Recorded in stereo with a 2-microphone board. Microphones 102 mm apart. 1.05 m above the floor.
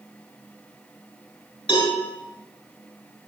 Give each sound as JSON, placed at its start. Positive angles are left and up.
{"t": 1.7, "sound": "a cowbell", "side_deg": 65, "distance_m": 7.0}